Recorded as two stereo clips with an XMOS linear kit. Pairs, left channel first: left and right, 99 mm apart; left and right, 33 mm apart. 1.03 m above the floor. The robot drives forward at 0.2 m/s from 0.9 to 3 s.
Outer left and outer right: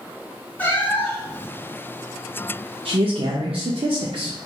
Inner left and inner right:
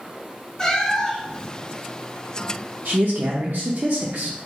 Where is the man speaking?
70° right (ahead or behind), 0.6 m.